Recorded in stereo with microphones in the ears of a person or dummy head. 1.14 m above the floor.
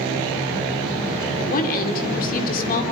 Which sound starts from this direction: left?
A woman speaking, at 1.4 s.